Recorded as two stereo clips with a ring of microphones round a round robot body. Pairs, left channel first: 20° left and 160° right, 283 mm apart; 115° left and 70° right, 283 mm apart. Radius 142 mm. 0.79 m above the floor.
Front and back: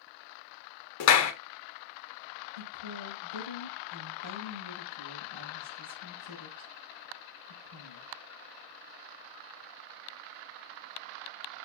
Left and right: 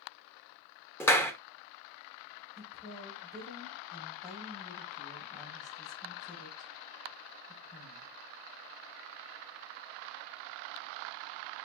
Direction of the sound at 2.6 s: 170° right.